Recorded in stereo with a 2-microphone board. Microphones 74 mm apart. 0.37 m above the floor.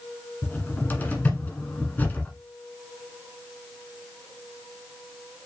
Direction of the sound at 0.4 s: 25° left (ahead or behind).